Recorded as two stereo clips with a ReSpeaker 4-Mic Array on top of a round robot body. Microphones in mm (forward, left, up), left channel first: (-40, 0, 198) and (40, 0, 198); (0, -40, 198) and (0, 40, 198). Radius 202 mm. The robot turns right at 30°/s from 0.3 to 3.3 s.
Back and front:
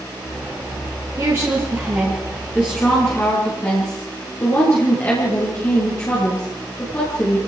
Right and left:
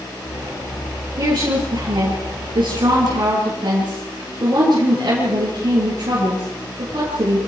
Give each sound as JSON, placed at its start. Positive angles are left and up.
{"t": 1.2, "sound": "a woman speaking", "azimuth_deg": 60, "distance_m": 6.5}